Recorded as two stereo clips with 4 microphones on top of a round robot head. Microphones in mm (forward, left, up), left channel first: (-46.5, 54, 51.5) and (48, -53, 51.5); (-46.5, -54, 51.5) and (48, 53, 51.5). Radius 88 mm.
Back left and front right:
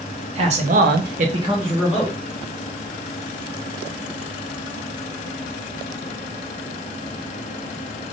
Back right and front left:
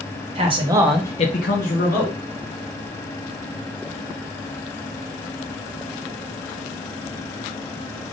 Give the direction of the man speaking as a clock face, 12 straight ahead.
12 o'clock.